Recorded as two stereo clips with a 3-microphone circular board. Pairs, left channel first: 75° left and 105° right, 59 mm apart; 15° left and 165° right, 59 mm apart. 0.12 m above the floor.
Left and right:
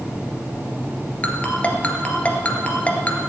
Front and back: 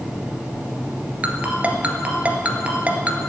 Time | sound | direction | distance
1.2 | a ringtone | 135° left | 1.7 m